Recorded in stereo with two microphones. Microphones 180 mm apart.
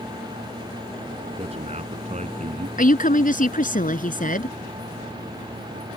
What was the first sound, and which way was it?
A man speaking, 35° right (ahead or behind).